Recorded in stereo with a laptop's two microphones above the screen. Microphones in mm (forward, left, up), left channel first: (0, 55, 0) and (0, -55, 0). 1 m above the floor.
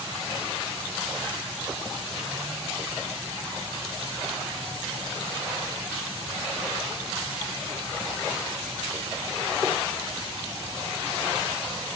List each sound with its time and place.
Only background noise.